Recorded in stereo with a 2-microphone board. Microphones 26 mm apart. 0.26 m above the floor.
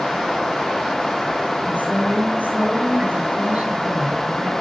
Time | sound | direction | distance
1.6 | a woman speaking | 70° right (ahead or behind) | 4 m